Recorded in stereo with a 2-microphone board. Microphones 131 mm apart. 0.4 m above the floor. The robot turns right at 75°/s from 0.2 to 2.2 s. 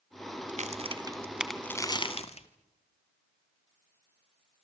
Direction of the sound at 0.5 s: 70° right (ahead or behind).